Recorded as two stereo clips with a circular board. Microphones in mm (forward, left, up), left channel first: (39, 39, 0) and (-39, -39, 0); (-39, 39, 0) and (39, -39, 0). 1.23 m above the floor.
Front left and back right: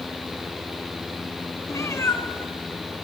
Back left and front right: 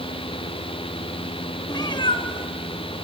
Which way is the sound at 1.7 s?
95° left.